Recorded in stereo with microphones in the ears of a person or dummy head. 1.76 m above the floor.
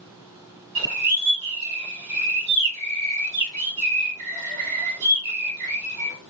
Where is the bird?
50° right (ahead or behind), 2 m.